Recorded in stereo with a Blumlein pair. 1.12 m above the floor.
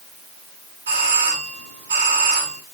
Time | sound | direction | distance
0.9 | a doorbell | 60° right | 7 m